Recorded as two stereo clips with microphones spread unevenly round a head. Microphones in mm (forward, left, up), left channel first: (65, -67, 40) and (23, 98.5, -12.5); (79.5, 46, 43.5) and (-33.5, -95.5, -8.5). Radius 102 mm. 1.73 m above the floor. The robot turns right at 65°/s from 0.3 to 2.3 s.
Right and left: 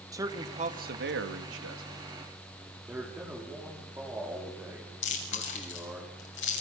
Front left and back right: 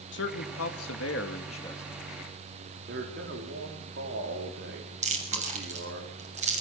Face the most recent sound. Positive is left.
turn(degrees=-70)